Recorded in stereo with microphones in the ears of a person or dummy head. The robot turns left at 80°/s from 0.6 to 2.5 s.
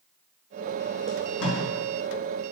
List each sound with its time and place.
1.1 s tape being pulled: 65° left (ahead or behind), 1.8 m; by 1.6 s 70° left (ahead or behind), 1.8 m